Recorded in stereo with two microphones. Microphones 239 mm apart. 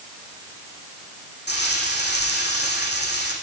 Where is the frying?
45° left (ahead or behind), 7.5 m.